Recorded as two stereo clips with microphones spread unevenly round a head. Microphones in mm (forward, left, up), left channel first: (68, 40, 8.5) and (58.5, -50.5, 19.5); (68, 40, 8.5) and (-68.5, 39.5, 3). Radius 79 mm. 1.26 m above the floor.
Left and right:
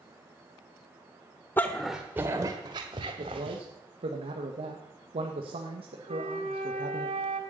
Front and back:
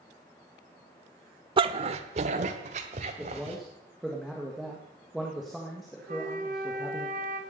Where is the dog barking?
155° left, 1.0 m; by 3.6 s 130° right, 2.5 m.